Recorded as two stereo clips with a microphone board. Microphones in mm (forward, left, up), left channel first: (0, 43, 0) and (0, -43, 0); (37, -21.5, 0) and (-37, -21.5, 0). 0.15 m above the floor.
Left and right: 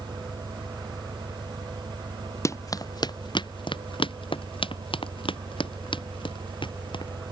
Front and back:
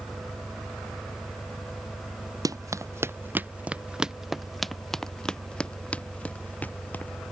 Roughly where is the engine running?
Right.